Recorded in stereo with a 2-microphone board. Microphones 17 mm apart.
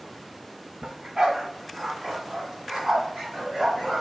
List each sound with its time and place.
0.8 s a dog barking: 60° right (ahead or behind), 0.9 m; by 4.0 s 35° right (ahead or behind), 2.5 m